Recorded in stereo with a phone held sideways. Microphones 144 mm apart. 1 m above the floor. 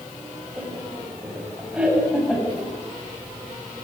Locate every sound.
0.6 s laughter: 5° right (ahead or behind), 5.5 m; by 2.7 s 10° right (ahead or behind), 7 m